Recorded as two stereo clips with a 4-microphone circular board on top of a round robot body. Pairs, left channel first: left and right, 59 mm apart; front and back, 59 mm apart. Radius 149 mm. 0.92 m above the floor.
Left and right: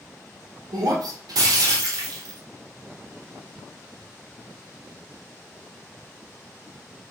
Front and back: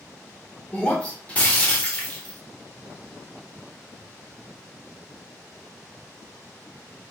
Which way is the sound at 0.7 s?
70° right.